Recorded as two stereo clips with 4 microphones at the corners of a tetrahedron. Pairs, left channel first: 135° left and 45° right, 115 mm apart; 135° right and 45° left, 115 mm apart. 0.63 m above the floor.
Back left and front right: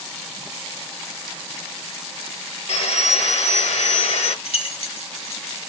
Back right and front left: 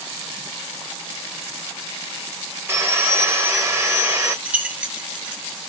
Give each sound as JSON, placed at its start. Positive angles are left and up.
{"t": 2.7, "sound": "sawing", "azimuth_deg": 115, "distance_m": 1.0}
{"t": 4.5, "sound": "keys jangling", "azimuth_deg": 120, "distance_m": 1.0}